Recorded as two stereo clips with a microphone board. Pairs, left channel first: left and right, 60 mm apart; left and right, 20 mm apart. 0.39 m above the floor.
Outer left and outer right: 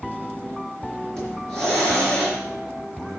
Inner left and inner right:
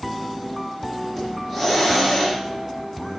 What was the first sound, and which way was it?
A hiss, 10° left (ahead or behind).